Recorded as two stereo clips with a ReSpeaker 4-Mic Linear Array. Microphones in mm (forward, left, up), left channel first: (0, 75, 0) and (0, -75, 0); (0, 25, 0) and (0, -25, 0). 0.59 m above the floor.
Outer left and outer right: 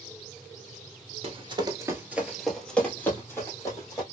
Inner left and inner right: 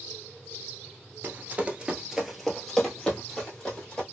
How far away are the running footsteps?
About 0.7 m.